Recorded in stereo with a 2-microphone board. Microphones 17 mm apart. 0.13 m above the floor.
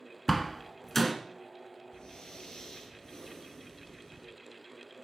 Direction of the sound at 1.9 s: 45° left (ahead or behind).